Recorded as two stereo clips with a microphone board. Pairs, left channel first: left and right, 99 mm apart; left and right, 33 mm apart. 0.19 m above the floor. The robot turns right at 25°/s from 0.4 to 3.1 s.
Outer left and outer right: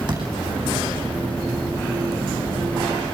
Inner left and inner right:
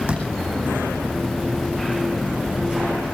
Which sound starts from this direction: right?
A door slam, at 0.1 s.